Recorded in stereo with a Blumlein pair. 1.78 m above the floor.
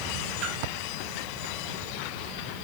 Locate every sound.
0.4 s a splash: 30° right, 3 m